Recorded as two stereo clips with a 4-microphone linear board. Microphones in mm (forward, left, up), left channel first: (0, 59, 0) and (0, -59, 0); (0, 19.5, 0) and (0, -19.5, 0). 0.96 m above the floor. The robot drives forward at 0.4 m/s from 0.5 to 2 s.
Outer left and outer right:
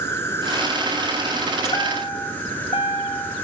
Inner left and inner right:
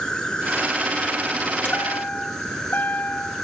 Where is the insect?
20° left (ahead or behind), 2 m; by 3.5 s 15° left (ahead or behind), 2.5 m.